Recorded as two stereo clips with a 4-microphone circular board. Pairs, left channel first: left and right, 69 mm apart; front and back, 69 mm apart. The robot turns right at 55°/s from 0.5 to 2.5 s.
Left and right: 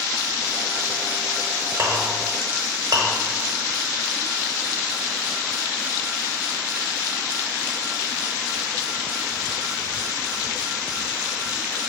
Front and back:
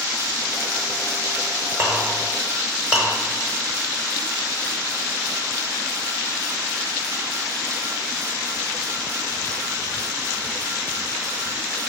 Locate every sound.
1.8 s a clink: 145° right, 0.8 m; by 3.1 s 105° right, 0.8 m